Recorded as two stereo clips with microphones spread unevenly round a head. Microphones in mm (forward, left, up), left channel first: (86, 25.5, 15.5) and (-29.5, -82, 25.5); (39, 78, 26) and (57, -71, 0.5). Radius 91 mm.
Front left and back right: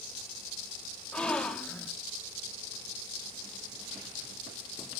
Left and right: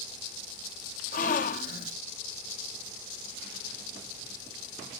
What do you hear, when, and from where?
1.1 s a gasp: 130° left, 0.7 m